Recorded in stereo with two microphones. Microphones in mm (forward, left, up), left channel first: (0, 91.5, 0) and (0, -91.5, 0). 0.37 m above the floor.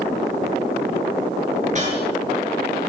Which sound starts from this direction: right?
A whoosh, at 1.6 s.